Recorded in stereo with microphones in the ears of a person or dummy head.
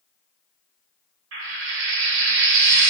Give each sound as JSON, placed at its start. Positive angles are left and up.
{"t": 1.3, "sound": "frying", "side_deg": -60, "distance_m": 0.8}